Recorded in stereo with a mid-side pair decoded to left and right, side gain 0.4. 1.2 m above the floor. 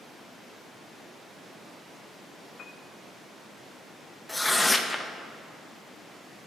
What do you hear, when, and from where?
2.6 s a piano: 55° left, 0.5 m
4.3 s tearing paper: 15° left, 0.7 m